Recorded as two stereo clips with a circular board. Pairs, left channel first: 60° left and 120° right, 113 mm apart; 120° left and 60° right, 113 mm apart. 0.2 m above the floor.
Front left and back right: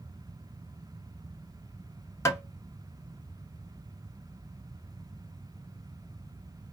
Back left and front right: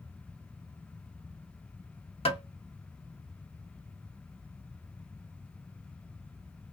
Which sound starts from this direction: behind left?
Tapping, at 2.2 s.